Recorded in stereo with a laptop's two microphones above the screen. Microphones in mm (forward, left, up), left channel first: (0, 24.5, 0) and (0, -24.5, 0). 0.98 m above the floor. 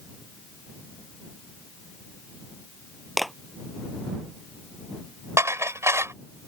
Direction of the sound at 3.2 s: Centre (ahead or behind).